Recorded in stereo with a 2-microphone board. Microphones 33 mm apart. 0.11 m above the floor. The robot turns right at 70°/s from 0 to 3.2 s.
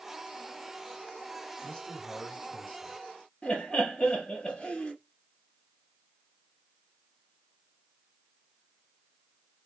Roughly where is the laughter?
Left.